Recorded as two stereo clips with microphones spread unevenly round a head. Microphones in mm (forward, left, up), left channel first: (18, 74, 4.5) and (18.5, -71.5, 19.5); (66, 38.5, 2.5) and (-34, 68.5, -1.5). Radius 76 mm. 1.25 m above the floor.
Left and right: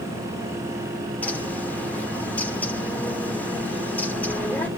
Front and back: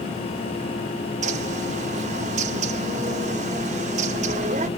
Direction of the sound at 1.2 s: 170° left.